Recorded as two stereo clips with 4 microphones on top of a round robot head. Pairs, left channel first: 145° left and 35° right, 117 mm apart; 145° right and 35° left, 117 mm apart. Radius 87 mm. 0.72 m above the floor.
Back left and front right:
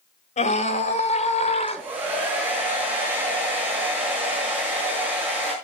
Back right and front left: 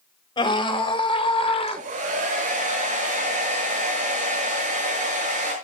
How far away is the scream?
About 4.5 m.